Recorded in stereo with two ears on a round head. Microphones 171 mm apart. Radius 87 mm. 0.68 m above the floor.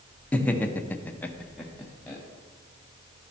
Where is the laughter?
10° left (ahead or behind), 1.0 m; by 2.2 s centre (ahead or behind), 1.1 m.